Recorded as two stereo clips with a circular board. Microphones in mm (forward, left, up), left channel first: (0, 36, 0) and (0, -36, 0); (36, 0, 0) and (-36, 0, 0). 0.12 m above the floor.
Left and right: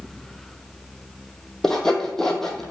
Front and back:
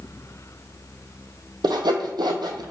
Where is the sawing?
175° left, 0.7 m.